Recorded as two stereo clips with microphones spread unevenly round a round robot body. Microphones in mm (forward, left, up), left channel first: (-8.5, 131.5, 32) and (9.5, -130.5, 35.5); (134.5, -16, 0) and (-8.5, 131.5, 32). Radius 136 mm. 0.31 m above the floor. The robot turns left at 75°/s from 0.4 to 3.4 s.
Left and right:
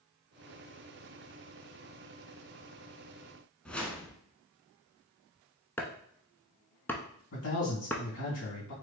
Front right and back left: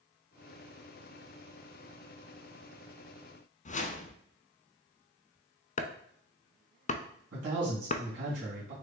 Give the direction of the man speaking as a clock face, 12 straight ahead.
8 o'clock.